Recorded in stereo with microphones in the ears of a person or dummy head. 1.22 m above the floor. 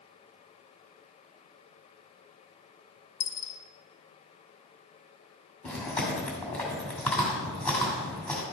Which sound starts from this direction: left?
A dropped coin, at 3.2 s.